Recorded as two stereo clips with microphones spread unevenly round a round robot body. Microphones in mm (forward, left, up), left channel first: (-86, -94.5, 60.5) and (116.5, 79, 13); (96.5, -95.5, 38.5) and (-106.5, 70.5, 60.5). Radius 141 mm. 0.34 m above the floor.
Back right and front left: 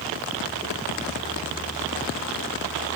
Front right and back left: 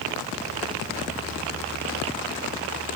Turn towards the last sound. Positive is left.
No sound to turn to.